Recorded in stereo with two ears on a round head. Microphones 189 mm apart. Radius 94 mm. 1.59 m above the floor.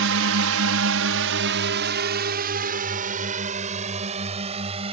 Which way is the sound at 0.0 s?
70° right (ahead or behind).